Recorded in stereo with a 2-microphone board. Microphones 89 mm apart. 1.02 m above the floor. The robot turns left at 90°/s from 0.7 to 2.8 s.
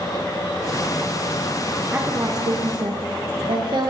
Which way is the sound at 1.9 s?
15° right.